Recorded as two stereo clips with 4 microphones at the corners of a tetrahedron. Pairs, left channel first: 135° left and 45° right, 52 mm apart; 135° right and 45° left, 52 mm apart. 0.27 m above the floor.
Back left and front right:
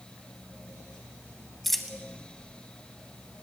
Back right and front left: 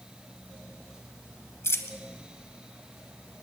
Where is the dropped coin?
140° right, 0.8 m.